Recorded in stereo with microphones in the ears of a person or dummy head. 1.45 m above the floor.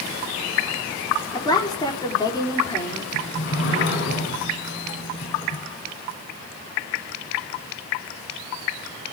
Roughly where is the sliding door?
Left.